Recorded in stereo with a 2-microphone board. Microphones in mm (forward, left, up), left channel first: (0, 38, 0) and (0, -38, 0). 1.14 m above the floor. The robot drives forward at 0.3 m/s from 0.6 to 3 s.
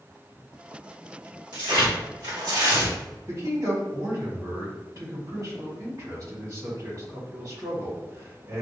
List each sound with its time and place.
1.5 s tearing paper: 70° right (ahead or behind), 1.9 m; by 3.0 s 60° right (ahead or behind), 2 m
3.3 s a man speaking: 45° right (ahead or behind), 1.9 m